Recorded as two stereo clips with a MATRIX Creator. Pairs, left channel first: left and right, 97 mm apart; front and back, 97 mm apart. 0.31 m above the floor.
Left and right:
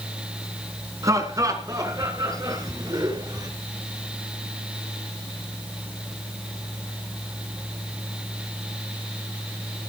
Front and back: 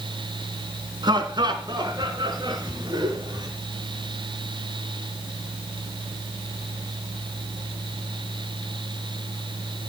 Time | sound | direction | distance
1.0 | laughter | 145° right | 3.5 m